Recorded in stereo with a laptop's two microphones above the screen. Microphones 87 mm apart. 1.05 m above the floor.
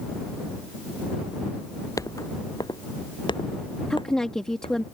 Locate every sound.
2.0 s footsteps: 40° left (ahead or behind); by 4.8 s 80° left
3.9 s a woman speaking: 5° left (ahead or behind)